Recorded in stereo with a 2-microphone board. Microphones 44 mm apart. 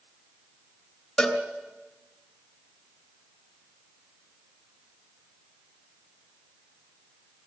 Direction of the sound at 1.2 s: 10° left (ahead or behind).